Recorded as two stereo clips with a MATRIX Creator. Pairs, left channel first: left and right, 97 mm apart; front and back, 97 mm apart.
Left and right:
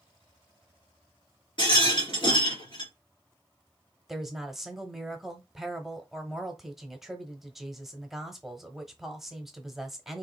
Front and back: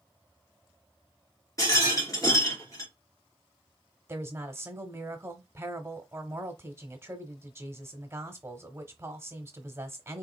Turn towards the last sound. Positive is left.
turn(degrees=-170)